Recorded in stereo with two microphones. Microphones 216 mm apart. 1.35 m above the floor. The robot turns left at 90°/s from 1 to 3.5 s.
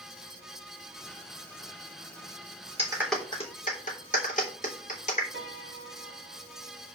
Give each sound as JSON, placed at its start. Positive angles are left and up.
{"t": 2.8, "sound": "a clap", "side_deg": -25, "distance_m": 3.5}
{"t": 5.3, "sound": "a piano", "side_deg": -60, "distance_m": 4.0}